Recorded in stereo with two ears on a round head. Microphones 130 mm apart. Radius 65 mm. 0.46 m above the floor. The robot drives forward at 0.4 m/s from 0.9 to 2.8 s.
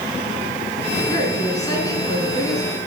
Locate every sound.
1.1 s a woman speaking: 30° left (ahead or behind), 5.5 m; by 2.8 s 25° left (ahead or behind), 6 m